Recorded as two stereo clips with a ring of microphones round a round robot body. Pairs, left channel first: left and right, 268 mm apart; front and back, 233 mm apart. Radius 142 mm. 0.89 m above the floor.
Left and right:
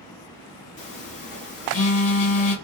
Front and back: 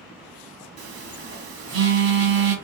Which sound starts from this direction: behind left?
A phone buzzing, at 0.8 s.